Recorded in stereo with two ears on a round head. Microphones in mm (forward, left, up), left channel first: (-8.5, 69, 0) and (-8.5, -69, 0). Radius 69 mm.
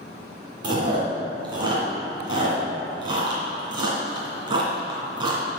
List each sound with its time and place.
0.6 s chewing: 30° right (ahead or behind), 2 m